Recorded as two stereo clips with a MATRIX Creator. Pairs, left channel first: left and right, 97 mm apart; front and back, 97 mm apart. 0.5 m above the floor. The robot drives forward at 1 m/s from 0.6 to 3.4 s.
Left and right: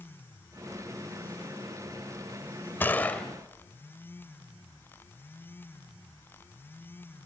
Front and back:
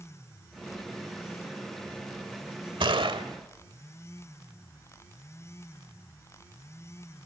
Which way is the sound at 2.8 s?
160° left.